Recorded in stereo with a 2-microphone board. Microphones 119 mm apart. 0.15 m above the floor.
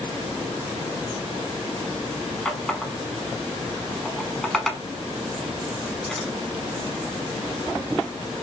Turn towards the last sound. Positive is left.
turn(degrees=0)  # may be behind; listen again after turning